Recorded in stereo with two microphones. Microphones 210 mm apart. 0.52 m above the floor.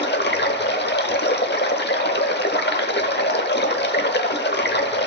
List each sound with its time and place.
0.0 s running water: 55° left (ahead or behind), 0.8 m